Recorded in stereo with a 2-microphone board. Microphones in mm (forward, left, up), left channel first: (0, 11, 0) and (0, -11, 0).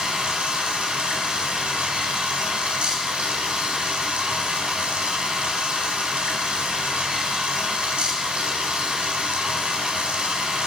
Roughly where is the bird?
I don't hear a bird.